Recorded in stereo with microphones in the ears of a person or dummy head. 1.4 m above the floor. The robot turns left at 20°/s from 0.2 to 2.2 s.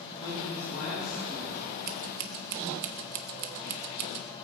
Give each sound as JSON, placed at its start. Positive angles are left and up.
{"t": 0.2, "sound": "a man speaking", "azimuth_deg": 155, "distance_m": 8.0}
{"t": 1.9, "sound": "scissors", "side_deg": -45, "distance_m": 1.0}